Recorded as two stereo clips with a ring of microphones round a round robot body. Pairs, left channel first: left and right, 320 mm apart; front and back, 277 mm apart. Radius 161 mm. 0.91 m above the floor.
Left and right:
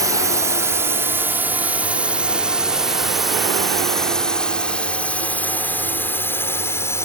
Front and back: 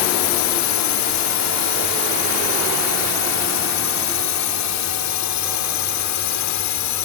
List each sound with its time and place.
0.0 s a drone: 10° right; by 7.1 s 10° left